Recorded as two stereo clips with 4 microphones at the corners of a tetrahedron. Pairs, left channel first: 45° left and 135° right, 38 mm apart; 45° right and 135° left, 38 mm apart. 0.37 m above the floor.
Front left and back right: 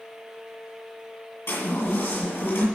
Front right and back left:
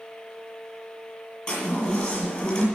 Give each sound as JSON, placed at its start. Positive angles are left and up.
{"t": 1.5, "sound": "a chime", "azimuth_deg": 15, "distance_m": 7.5}